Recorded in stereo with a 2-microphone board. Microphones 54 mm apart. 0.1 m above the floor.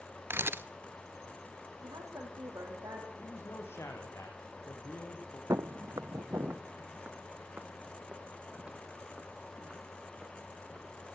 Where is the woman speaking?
70° right (ahead or behind), 6 m.